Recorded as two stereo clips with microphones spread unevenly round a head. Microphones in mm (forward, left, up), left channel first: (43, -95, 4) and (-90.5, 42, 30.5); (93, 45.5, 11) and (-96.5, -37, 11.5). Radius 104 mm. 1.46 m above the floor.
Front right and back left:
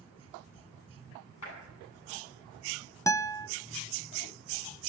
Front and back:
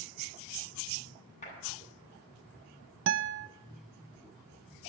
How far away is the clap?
About 10 m.